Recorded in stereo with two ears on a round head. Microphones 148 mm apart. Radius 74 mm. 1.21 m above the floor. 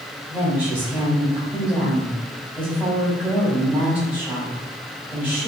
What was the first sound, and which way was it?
A woman speaking, 15° right (ahead or behind).